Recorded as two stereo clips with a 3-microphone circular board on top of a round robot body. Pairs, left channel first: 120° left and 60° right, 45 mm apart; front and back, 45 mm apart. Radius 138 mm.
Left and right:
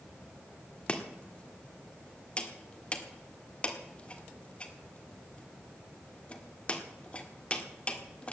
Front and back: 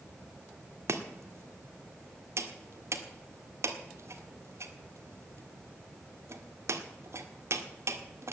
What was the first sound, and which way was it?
Chopping, 175° right.